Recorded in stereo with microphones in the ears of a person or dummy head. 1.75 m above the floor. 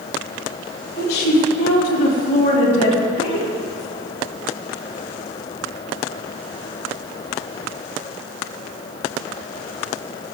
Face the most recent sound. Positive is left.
turn(degrees=30)  # may be behind; listen again after turning